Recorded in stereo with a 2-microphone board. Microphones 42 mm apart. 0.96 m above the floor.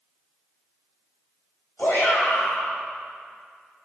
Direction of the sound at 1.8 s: 60° left (ahead or behind).